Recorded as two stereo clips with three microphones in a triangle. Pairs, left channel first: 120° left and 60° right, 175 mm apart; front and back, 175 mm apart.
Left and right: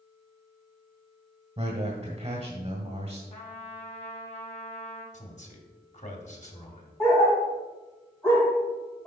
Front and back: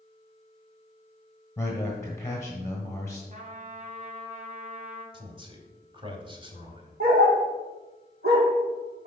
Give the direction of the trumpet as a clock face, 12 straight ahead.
7 o'clock.